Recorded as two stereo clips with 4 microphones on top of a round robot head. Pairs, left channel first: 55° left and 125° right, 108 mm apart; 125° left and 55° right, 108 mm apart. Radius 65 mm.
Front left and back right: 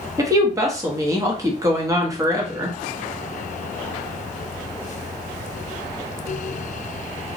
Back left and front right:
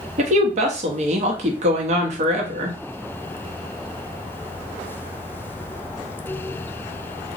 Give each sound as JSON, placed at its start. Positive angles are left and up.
{"t": 0.2, "sound": "a woman speaking", "azimuth_deg": -65, "distance_m": 0.9}